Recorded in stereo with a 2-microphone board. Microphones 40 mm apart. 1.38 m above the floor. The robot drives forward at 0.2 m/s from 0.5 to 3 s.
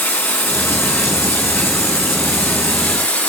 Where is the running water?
80° left, 1.9 m; by 3.3 s 65° left (ahead or behind), 2 m.